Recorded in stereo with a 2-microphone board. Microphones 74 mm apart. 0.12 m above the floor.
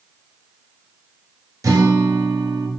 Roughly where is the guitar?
Right.